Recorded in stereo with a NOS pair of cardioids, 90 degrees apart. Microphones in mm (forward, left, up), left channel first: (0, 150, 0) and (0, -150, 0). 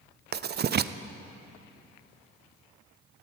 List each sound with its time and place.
0.3 s writing: 35° right, 0.6 m